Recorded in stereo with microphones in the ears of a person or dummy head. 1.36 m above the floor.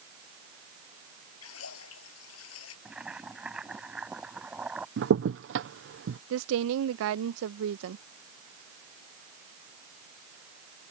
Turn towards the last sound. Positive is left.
turn(degrees=-75)  # may be behind; listen again after turning